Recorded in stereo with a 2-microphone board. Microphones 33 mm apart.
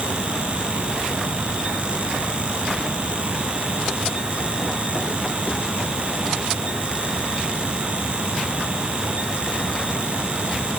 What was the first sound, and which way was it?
Only background noise.